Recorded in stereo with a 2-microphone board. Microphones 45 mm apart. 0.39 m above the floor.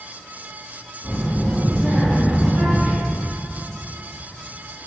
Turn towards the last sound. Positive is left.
turn(degrees=-35)  # may be behind; listen again after turning